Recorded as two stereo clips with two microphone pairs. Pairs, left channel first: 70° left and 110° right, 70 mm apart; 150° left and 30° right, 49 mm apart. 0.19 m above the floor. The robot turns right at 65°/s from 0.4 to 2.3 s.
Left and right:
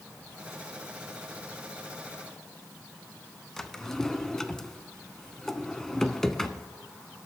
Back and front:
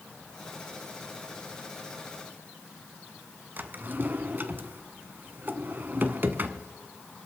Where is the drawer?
10° right, 0.7 m.